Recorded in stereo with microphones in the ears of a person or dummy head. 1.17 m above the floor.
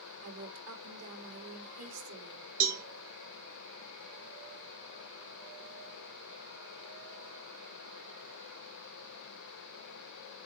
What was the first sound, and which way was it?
A woman speaking, 85° right.